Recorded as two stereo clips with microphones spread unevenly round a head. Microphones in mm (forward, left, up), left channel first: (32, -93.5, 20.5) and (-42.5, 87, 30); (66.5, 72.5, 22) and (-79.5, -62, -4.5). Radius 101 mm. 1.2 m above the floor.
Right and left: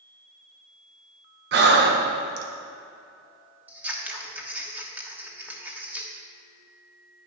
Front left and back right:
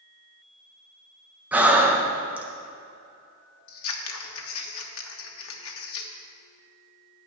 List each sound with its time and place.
1.5 s breathing: 145° left, 1.4 m
3.7 s scissors: 30° left, 1.2 m